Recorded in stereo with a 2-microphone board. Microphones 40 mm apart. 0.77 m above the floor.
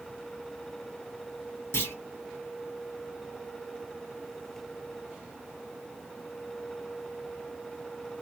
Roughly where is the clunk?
Left.